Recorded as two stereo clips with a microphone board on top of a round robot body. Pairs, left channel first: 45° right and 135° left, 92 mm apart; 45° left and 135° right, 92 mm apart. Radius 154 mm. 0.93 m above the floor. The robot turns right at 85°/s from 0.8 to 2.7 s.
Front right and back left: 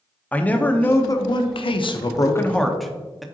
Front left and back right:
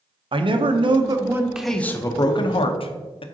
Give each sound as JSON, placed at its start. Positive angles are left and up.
{"t": 0.3, "sound": "a man speaking", "azimuth_deg": -115, "distance_m": 1.0}